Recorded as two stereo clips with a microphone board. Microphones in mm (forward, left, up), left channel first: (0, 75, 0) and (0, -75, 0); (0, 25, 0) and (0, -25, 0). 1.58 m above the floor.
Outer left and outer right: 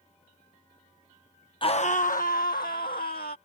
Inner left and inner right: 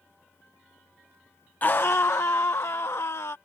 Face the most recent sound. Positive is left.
turn(degrees=80)